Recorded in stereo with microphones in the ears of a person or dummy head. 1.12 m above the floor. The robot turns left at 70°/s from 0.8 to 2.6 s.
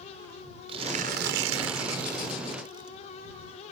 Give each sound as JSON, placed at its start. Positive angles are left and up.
{"t": 0.7, "sound": "tearing paper", "azimuth_deg": -30}